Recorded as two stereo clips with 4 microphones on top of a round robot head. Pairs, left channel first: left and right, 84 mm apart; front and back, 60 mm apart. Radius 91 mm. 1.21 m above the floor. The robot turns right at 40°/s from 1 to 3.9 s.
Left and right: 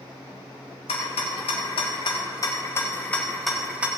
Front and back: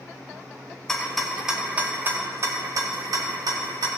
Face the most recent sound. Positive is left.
turn(degrees=-165)